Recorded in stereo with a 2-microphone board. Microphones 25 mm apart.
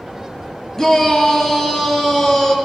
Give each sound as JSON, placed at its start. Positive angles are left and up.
{"t": 0.8, "sound": "a shout", "side_deg": 15, "distance_m": 3.5}